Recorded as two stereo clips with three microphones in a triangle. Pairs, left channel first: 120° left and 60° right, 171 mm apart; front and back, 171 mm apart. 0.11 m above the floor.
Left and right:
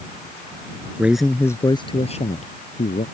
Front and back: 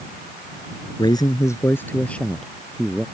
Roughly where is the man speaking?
Ahead.